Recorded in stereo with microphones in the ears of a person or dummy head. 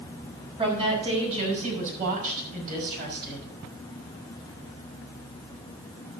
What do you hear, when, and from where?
0.6 s a woman speaking: 30° right (ahead or behind), 6 m; by 3.5 s 55° right (ahead or behind), 5.5 m